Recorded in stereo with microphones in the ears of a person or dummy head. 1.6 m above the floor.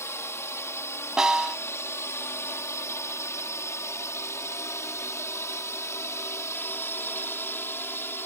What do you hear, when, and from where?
0.0 s a drone: 10° left (ahead or behind)
1.2 s a snare drum: centre (ahead or behind)